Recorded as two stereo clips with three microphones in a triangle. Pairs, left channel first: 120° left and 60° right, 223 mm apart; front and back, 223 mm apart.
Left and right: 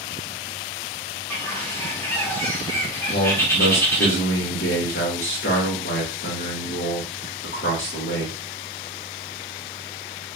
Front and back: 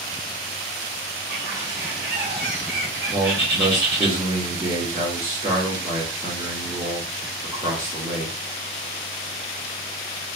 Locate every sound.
1.3 s a bird: 165° right, 1.2 m
3.1 s a man speaking: 120° left, 1.5 m